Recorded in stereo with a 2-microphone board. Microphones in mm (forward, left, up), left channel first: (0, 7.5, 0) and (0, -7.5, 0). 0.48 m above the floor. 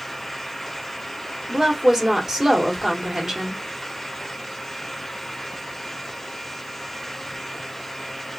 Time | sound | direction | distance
1.5 | a woman speaking | 30° right (ahead or behind) | 1.3 m